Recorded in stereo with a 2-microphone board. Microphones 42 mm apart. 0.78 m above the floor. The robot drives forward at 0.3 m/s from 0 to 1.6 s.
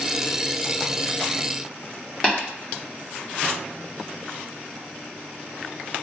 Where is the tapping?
25° left (ahead or behind), 1.1 m.